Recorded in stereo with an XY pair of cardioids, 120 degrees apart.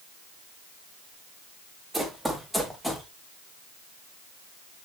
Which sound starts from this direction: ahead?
Running footsteps, at 1.9 s.